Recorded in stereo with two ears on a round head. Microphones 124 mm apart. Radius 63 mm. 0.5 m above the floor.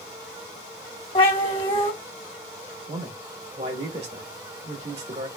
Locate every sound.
1.1 s a cat meowing: 40° left (ahead or behind), 1.1 m
2.9 s a man speaking: 50° right (ahead or behind), 1.9 m